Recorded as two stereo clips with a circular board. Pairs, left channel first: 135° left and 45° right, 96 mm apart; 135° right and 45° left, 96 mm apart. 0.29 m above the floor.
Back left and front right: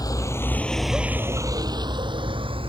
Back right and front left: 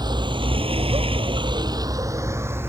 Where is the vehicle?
85° left; by 2.7 s 20° right.